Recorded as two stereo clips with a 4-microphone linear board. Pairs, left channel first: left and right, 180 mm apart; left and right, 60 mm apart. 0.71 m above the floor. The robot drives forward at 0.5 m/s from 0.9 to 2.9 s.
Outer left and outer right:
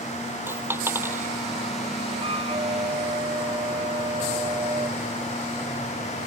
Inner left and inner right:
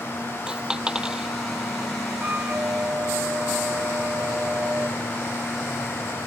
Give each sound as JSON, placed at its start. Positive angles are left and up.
{"t": 0.5, "sound": "a dropped coin", "side_deg": -15}
{"t": 2.2, "sound": "a flute", "side_deg": -35}